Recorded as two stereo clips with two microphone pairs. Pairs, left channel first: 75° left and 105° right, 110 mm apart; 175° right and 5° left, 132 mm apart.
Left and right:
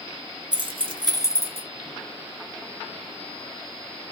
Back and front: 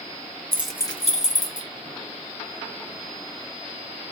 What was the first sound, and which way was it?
Keys jangling, 65° right.